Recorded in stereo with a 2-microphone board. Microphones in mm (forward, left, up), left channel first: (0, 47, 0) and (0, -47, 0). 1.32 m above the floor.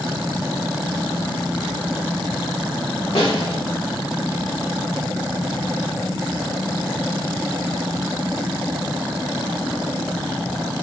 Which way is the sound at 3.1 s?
75° left (ahead or behind).